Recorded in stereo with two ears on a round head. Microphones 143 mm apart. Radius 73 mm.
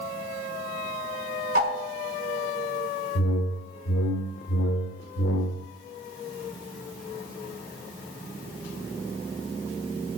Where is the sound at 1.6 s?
55° right (ahead or behind), 4 m.